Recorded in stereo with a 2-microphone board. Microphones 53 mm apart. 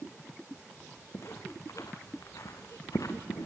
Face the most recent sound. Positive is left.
turn(degrees=80)